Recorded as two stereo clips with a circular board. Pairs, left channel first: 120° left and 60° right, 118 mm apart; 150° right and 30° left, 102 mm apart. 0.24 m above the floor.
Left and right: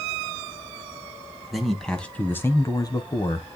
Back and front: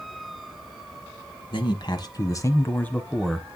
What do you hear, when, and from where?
1.5 s a man speaking: 150° right, 1.5 m; by 3.5 s 115° left, 1.3 m